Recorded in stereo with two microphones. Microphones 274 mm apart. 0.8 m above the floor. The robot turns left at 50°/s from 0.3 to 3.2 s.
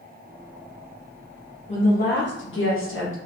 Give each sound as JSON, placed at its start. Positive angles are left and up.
{"t": 1.7, "sound": "a woman speaking", "azimuth_deg": 150, "distance_m": 1.0}